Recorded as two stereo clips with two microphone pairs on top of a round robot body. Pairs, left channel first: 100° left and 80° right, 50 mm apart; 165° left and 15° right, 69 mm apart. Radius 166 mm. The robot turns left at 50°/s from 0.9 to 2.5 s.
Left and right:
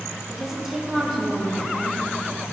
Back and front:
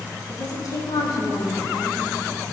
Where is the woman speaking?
165° right, 3.5 m; by 2.0 s 140° left, 3.5 m.